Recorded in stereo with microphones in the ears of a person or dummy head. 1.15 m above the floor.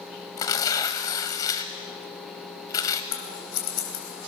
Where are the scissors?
80° left, 3.5 m.